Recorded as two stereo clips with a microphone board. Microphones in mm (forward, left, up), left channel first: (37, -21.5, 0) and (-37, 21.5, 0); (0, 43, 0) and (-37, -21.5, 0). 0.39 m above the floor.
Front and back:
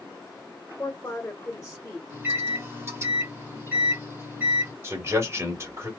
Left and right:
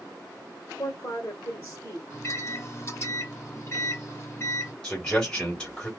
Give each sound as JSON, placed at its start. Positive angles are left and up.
{"t": 0.8, "sound": "a woman speaking", "azimuth_deg": 30, "distance_m": 1.0}
{"t": 2.1, "sound": "a microwave", "azimuth_deg": 100, "distance_m": 1.1}
{"t": 4.8, "sound": "a man speaking", "azimuth_deg": 135, "distance_m": 1.6}